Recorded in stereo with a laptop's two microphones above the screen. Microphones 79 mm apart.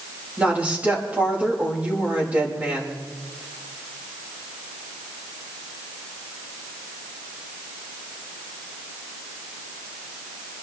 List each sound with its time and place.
0.4 s a woman speaking: 15° right (ahead or behind), 4.5 m